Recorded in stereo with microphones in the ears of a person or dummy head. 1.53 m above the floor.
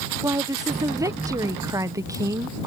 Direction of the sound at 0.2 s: 20° right (ahead or behind).